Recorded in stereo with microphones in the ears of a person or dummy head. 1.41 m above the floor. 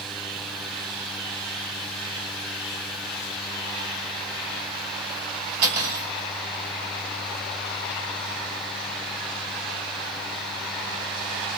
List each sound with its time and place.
5.6 s cutlery clinking: 65° right (ahead or behind), 3 m